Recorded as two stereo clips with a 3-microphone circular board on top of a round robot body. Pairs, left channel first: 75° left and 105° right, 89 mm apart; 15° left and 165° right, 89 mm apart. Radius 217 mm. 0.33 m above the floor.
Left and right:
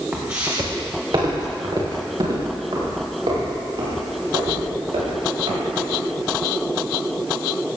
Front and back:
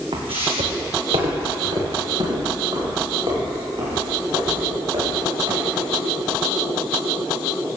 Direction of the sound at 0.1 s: Straight behind.